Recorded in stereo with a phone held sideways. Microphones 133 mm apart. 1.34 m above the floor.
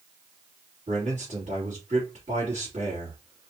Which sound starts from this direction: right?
A man speaking, at 0.9 s.